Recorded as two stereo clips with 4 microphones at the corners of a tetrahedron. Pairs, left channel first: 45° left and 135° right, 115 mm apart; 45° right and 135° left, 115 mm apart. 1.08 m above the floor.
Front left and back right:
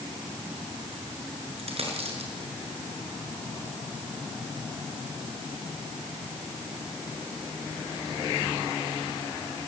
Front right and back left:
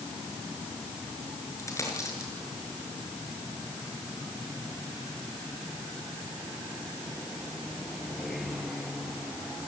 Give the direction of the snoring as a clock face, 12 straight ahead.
No snoring in this recording.